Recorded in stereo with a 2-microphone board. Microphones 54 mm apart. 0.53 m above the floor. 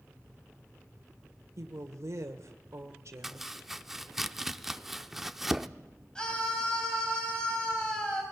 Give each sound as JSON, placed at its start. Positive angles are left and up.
{"t": 1.6, "sound": "a woman speaking", "side_deg": -65, "distance_m": 1.4}
{"t": 3.2, "sound": "chopping", "side_deg": -5, "distance_m": 0.5}
{"t": 6.2, "sound": "a scream", "side_deg": 15, "distance_m": 3.5}